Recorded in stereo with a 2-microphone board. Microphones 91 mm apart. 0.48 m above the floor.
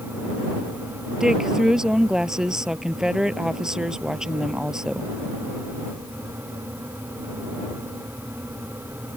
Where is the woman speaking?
5° right (ahead or behind).